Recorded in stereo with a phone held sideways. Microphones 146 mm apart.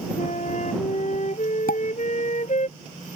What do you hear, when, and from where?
0.2 s a flute: 55° left (ahead or behind)
1.7 s a pop: 80° left